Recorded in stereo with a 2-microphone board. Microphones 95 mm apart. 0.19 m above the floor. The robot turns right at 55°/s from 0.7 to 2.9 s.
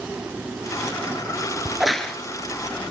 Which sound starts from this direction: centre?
A crack, at 1.6 s.